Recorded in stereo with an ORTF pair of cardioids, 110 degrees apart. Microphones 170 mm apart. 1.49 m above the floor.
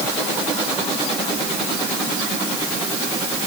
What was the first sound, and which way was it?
Only background noise.